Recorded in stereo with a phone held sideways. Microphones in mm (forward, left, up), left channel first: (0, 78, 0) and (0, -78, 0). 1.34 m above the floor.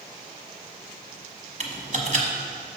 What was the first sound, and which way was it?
Typing on a keyboard, 50° right (ahead or behind).